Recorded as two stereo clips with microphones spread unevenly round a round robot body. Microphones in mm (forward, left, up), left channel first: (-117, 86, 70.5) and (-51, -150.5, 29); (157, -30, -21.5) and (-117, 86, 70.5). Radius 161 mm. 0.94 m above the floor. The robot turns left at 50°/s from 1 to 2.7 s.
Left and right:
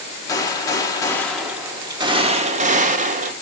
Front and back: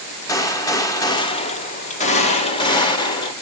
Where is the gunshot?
25° left, 0.8 m; by 3.3 s 60° right, 0.8 m.